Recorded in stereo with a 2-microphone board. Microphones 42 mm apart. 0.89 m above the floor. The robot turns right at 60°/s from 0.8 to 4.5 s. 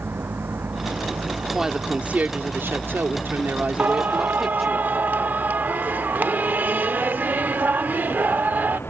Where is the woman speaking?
175° right; by 4.8 s 5° left.